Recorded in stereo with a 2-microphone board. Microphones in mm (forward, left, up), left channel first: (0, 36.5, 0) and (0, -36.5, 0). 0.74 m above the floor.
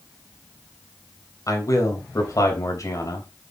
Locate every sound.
1.5 s a man speaking: 45° left (ahead or behind), 3.5 m